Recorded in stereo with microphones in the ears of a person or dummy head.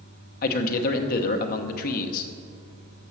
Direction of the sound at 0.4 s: 55° left (ahead or behind).